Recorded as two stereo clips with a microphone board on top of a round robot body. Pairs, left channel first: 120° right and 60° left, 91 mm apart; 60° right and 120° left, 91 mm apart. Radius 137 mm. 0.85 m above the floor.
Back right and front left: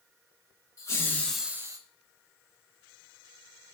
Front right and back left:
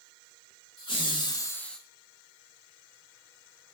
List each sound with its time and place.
0.8 s laughter: 70° right, 0.9 m; by 1.8 s 25° left, 0.6 m